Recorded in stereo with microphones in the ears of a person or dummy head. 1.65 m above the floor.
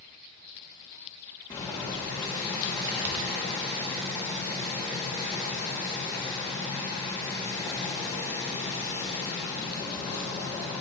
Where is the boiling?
20° left (ahead or behind), 1.8 m.